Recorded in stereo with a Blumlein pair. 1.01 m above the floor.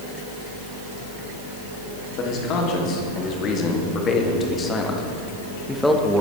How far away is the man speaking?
About 3 m.